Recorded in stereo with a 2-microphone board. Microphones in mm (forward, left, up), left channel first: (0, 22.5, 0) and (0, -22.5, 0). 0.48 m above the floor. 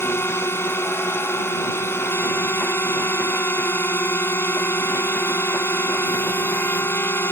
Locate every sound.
0.0 s a drone: 70° left (ahead or behind)